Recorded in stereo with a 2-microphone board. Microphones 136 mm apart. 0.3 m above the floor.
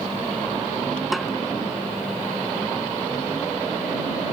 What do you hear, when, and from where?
1.1 s a snare drum: centre (ahead or behind)